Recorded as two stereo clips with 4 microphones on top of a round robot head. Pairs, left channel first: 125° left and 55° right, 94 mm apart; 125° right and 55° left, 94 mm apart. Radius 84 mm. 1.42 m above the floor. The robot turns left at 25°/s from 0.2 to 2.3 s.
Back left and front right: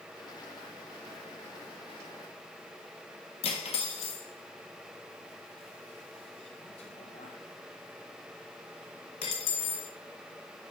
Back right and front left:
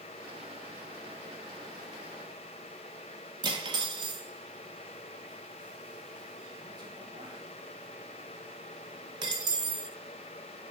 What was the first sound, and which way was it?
Cutlery clinking, 100° left.